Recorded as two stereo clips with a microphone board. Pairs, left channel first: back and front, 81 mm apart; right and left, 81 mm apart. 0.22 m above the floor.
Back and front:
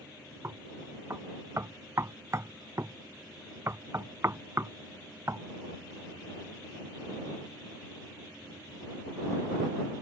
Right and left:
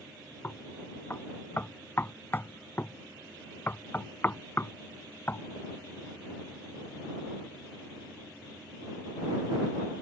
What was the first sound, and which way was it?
Knocking, 35° right.